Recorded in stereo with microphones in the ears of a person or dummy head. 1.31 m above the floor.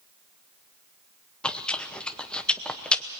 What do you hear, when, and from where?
1.4 s chewing: 5° left (ahead or behind), 0.8 m